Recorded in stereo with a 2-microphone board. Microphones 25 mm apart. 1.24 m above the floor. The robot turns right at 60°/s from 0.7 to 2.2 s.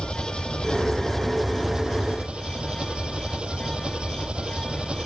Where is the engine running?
135° left; by 5.1 s 135° right.